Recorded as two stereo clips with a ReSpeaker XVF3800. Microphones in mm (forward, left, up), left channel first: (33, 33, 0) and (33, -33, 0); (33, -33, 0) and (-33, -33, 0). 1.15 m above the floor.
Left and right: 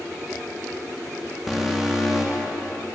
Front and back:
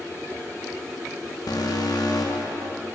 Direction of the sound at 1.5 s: 5° right.